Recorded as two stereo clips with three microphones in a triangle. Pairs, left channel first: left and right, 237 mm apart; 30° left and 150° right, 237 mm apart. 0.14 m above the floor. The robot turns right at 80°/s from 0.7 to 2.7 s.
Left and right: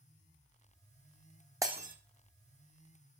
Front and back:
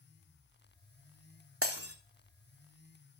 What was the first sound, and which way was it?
Breaking glass, 170° right.